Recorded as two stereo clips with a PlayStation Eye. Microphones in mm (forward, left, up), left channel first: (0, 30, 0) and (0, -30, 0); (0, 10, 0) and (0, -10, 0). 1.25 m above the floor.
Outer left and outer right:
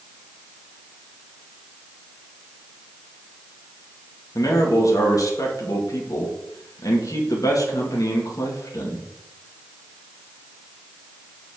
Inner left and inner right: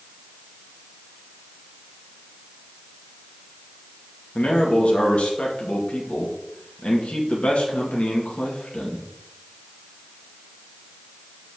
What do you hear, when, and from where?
4.3 s a man speaking: 75° left (ahead or behind), 2.5 m